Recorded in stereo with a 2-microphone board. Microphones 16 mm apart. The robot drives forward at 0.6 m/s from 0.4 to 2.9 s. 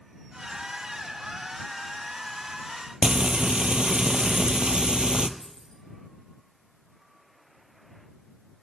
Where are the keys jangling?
55° left (ahead or behind), 3.5 m.